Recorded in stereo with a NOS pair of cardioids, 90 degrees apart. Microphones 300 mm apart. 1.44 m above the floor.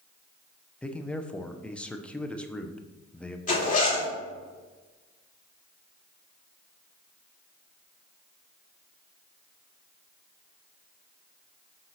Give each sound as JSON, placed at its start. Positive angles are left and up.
{"t": 0.8, "sound": "a man speaking", "azimuth_deg": 5, "distance_m": 0.8}
{"t": 3.5, "sound": "a zipper", "azimuth_deg": 25, "distance_m": 2.5}